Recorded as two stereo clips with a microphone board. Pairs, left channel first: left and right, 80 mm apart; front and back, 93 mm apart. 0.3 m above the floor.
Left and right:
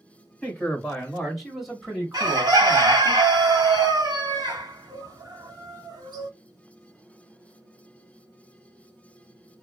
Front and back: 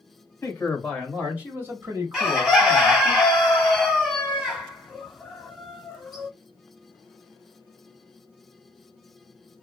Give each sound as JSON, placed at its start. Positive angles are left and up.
{"t": 0.4, "sound": "a man speaking", "azimuth_deg": 30, "distance_m": 1.0}
{"t": 2.1, "sound": "a bird", "azimuth_deg": -95, "distance_m": 1.0}